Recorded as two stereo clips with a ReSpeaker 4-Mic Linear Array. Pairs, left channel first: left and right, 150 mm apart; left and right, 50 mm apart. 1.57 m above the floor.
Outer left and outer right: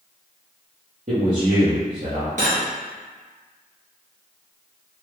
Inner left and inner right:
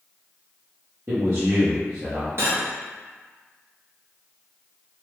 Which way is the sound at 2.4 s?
55° right (ahead or behind).